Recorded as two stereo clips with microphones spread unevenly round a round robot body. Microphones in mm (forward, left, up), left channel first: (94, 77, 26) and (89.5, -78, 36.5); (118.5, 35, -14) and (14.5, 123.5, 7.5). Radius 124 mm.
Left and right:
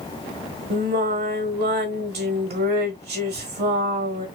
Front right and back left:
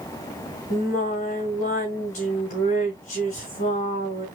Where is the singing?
85° right, 1.5 m.